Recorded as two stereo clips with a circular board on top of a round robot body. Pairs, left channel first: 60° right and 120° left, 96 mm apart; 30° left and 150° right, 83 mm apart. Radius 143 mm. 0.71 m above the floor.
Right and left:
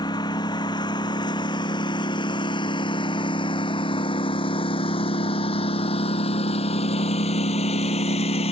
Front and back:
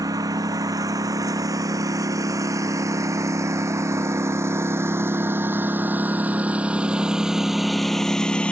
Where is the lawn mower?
105° right; by 8.5 s 45° right.